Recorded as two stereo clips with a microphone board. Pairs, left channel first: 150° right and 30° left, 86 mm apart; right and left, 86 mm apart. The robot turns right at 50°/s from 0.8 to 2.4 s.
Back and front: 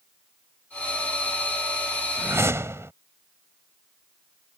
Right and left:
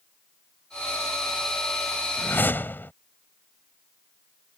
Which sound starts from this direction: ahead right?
A whoosh, at 2.2 s.